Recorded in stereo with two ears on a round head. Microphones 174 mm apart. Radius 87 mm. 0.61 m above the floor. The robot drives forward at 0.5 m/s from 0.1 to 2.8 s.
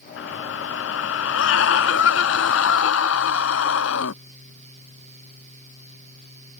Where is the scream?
70° left (ahead or behind); by 4.2 s 75° left (ahead or behind).